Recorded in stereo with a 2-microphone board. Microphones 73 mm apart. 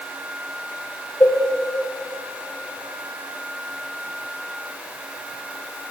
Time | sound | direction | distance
1.2 | a cowbell | 30° left (ahead or behind) | 3.5 m